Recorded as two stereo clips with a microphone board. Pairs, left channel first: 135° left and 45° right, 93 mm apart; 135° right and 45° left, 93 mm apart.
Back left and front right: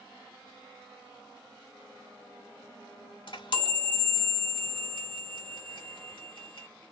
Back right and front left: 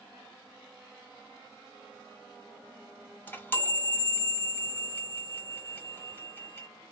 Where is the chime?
160° left, 1.1 m.